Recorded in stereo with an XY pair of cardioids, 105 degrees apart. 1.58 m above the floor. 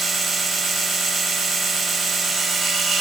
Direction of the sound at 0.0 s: 45° right.